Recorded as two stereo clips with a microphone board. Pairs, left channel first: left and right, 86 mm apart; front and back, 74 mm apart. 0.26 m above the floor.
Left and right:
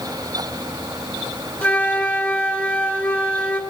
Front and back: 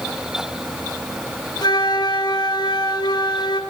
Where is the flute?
20° left, 2.5 m.